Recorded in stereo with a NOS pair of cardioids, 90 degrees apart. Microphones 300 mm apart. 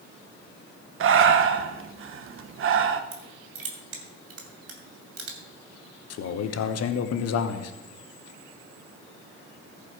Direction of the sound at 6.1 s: 65° left.